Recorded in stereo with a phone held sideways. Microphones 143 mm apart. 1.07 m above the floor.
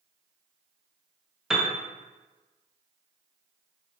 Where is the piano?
5° right (ahead or behind), 0.6 m.